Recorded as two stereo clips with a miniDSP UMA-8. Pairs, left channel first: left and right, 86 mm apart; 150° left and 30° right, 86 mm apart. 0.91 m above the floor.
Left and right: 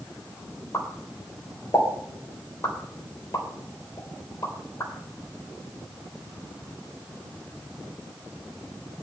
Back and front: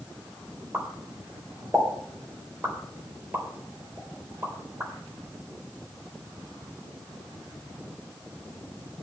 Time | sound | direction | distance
0.7 | a pop | 35° left | 3.5 m